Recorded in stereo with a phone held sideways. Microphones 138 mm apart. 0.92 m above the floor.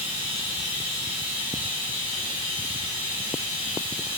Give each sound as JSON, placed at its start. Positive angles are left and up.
{"t": 0.0, "sound": "running water", "side_deg": -40, "distance_m": 1.5}